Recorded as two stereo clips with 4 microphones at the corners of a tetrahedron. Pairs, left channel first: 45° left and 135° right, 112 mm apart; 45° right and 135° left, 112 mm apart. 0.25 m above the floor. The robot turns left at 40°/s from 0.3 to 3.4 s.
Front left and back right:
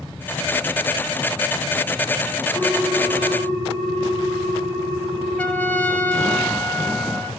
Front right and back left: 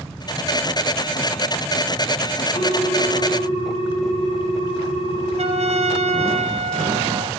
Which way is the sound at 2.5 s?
55° right.